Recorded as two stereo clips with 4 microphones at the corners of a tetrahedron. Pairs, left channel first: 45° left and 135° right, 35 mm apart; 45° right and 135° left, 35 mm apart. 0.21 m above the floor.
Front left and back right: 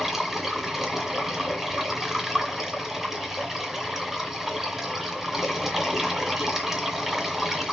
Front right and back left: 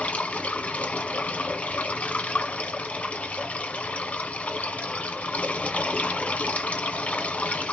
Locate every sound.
0.0 s running water: 60° right, 1.6 m